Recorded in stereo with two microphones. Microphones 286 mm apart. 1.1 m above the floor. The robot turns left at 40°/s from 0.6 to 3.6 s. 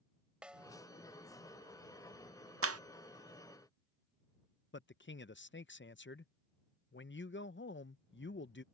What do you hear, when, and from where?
0.4 s a snare drum: 5° right (ahead or behind); by 0.8 s 10° right (ahead or behind)
2.6 s a clap: 50° right (ahead or behind); by 2.8 s 60° right (ahead or behind)
4.7 s a man speaking: 40° left (ahead or behind)